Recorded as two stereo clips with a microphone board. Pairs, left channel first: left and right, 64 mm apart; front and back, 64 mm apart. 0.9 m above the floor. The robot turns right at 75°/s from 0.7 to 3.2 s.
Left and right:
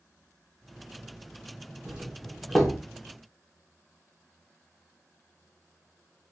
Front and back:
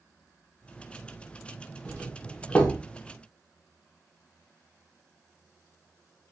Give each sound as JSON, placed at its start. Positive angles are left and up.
{"t": 1.9, "sound": "a doorbell", "azimuth_deg": -45, "distance_m": 0.9}